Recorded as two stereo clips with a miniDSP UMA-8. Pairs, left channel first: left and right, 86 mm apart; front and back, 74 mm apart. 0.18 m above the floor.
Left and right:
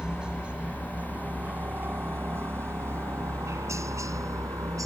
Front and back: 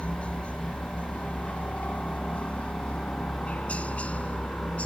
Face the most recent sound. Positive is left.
turn(degrees=-65)